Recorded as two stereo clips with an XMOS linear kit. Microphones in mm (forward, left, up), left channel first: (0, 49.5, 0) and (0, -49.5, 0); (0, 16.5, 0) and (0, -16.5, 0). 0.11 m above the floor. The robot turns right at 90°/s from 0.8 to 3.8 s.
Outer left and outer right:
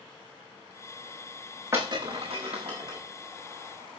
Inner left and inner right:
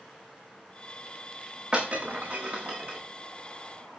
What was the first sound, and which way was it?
Breaking glass, 25° right (ahead or behind).